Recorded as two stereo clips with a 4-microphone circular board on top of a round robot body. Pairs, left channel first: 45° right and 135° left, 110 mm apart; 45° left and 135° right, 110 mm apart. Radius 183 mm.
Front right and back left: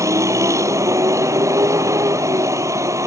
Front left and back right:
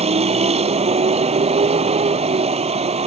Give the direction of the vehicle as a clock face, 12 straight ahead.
5 o'clock.